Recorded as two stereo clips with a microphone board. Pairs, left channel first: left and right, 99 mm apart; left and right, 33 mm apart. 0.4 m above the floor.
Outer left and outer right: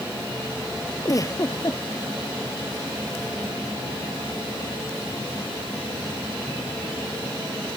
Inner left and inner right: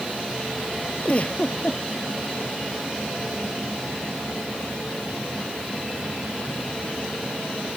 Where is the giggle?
35° left (ahead or behind).